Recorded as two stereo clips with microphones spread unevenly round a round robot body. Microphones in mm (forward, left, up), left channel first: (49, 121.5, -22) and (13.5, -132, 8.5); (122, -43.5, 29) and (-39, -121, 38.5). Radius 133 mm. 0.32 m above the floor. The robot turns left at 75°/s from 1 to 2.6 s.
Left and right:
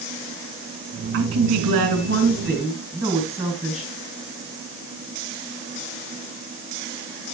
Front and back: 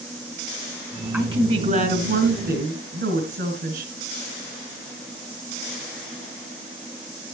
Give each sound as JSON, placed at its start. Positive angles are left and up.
{"t": 1.1, "sound": "a woman speaking", "azimuth_deg": -80, "distance_m": 2.5}